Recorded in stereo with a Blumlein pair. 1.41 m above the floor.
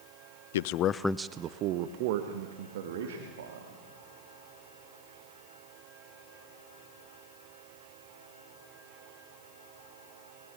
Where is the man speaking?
60° left, 0.7 m; by 3.8 s 60° right, 3.5 m.